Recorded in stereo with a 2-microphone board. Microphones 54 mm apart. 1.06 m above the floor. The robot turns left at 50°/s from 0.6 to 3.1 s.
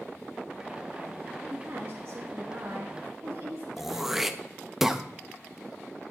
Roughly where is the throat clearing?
Centre.